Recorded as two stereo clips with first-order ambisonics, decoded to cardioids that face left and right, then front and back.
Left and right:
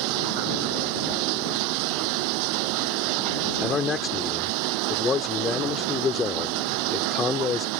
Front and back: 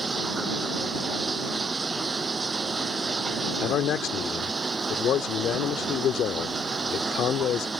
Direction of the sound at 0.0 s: 105° right.